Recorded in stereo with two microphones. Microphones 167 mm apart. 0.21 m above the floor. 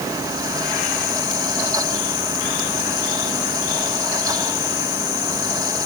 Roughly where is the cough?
No cough in this recording.